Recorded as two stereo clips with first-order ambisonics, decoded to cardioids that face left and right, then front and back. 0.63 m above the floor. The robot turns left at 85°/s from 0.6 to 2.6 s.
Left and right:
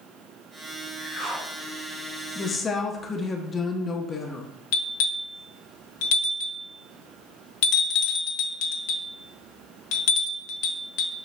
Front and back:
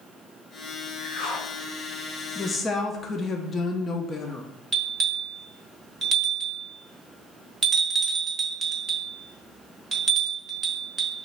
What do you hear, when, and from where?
1.0 s a whoosh: 25° left, 2.5 m; by 1.5 s 20° right, 2.5 m
2.4 s a woman speaking: 65° left, 0.5 m; by 4.5 s 45° left, 0.5 m
4.7 s a bell: 110° left, 0.8 m